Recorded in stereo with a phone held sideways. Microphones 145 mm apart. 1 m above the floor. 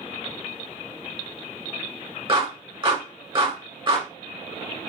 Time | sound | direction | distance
2.3 | a clap | 35° right (ahead or behind) | 2 m